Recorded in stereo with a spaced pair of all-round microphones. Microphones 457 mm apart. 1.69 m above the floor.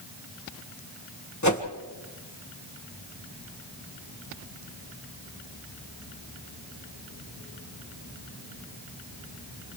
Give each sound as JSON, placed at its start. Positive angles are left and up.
{"t": 1.4, "sound": "a whoosh", "side_deg": 40, "distance_m": 1.6}